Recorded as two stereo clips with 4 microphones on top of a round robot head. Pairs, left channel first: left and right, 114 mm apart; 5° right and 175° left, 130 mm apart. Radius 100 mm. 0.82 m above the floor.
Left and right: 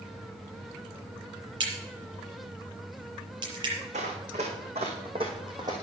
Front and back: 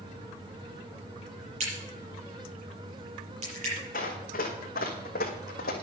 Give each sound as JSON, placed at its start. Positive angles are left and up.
{"t": 1.6, "sound": "a crack", "azimuth_deg": -135, "distance_m": 7.0}
{"t": 3.9, "sound": "running footsteps", "azimuth_deg": -45, "distance_m": 2.5}